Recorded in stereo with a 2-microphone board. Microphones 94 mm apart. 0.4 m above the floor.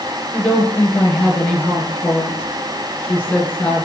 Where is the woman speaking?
15° left (ahead or behind), 6 m.